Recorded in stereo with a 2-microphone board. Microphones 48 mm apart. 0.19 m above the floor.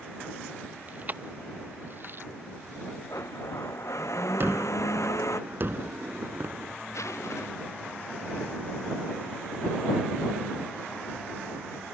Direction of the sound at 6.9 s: 85° left.